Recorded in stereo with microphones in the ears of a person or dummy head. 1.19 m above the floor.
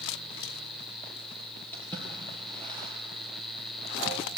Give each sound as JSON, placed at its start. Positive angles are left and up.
{"t": 1.7, "sound": "a splash", "side_deg": 10, "distance_m": 6.0}